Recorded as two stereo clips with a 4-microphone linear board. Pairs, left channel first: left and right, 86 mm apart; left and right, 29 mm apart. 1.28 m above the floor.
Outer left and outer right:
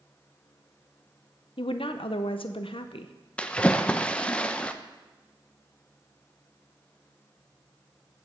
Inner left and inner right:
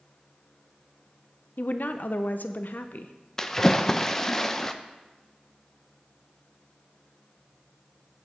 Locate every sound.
1.6 s a woman speaking: 80° left, 0.6 m
3.4 s a splash: 10° left (ahead or behind), 0.5 m